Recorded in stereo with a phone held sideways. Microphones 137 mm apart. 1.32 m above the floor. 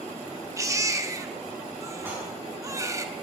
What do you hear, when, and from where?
0.6 s a baby crying: 20° right (ahead or behind), 0.8 m
2.0 s dishes clattering: 15° right (ahead or behind), 7.5 m